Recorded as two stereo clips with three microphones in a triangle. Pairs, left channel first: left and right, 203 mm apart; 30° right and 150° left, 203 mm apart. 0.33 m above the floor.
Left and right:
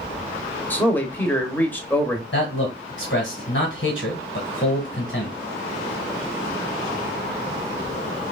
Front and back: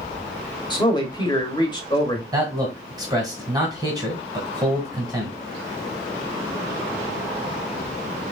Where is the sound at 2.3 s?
80° left, 1.8 m.